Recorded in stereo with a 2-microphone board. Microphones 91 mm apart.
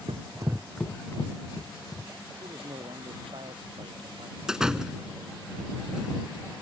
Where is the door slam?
5° right (ahead or behind).